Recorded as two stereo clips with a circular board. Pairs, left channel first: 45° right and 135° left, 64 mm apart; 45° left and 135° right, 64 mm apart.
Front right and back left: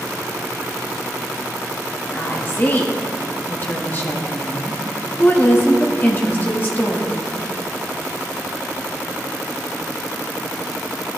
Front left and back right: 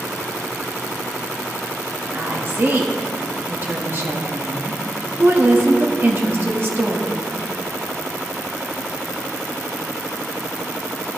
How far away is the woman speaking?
About 1.2 m.